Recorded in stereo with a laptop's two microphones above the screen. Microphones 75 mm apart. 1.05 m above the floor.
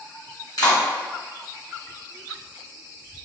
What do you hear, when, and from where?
0.6 s a clap: 60° left (ahead or behind), 1.5 m